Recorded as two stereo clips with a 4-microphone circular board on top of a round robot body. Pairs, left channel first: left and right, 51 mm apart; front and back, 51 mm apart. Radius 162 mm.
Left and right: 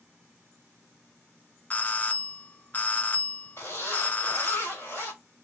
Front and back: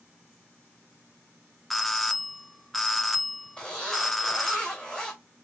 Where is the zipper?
65° left, 3 m.